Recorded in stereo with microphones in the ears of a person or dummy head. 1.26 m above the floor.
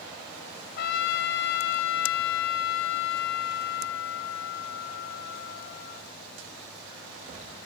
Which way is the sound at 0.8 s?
50° left (ahead or behind).